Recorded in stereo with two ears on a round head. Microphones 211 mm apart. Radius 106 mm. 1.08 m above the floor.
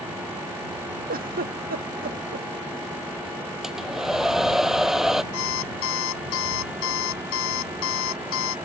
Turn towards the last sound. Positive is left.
turn(degrees=55)  # may be behind; listen again after turning